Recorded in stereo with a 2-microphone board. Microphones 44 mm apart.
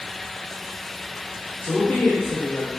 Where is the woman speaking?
55° left (ahead or behind), 1.4 m.